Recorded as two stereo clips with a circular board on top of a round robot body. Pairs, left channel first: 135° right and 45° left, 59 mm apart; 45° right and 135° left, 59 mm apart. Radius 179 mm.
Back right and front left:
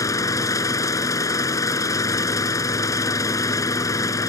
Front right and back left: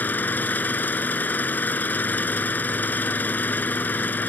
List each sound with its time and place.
0.0 s an engine running: 105° right